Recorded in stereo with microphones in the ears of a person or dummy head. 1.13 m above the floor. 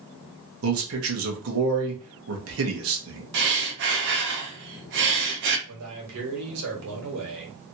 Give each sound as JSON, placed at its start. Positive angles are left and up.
{"t": 0.6, "sound": "a man speaking", "side_deg": -70, "distance_m": 1.2}
{"t": 3.3, "sound": "breathing", "side_deg": -60, "distance_m": 0.8}
{"t": 5.7, "sound": "a man speaking", "side_deg": -85, "distance_m": 1.7}